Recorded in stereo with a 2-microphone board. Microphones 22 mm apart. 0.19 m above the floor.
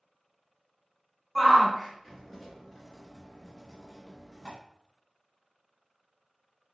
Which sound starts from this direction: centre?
A shout, at 1.4 s.